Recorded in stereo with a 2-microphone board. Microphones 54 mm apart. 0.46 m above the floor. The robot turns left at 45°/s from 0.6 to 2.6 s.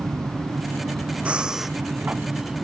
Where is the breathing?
25° right (ahead or behind); by 1.8 s centre (ahead or behind).